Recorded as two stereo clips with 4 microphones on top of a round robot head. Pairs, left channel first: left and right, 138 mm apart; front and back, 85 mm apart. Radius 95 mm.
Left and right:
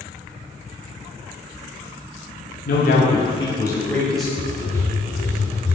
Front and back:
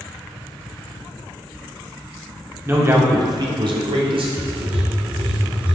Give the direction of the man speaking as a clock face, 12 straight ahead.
8 o'clock.